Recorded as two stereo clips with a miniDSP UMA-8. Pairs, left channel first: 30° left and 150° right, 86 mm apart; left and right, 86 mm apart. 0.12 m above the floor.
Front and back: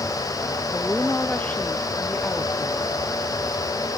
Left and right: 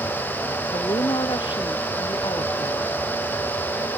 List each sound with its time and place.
0.7 s a woman speaking: 100° left; by 2.9 s 110° left